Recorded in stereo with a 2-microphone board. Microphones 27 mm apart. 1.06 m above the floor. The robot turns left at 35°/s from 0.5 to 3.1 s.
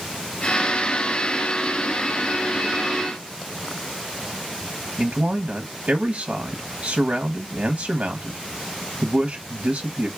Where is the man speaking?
50° right (ahead or behind), 0.7 m.